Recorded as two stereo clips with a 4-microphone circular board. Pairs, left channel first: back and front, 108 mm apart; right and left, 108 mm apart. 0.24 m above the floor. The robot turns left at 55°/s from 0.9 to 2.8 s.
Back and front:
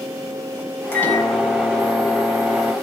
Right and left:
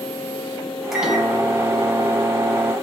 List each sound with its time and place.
0.9 s a microwave: 170° left, 0.7 m; by 2.7 s 70° left, 0.7 m